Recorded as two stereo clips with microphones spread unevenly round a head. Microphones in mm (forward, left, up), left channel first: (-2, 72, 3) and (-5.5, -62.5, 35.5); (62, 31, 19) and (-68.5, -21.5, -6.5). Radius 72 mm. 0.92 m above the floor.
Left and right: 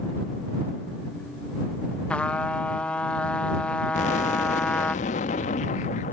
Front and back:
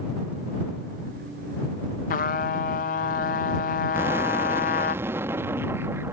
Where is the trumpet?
20° left.